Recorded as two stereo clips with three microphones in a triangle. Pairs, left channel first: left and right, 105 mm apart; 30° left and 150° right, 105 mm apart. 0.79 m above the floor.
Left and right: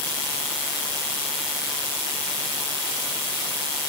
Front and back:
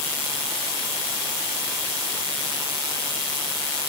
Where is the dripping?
No dripping in this recording.